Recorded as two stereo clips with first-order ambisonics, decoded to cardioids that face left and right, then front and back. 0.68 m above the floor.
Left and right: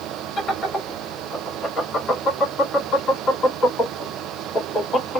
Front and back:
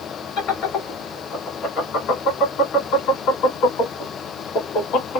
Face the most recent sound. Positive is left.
turn(degrees=25)